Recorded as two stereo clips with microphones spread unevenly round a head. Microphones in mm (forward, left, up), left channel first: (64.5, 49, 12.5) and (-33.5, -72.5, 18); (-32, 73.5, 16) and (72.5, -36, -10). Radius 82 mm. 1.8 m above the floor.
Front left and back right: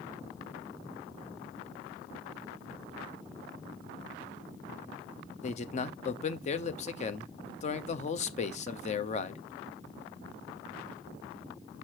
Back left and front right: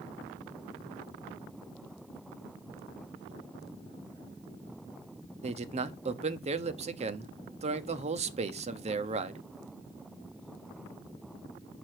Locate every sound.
5.4 s a man speaking: 5° left, 0.9 m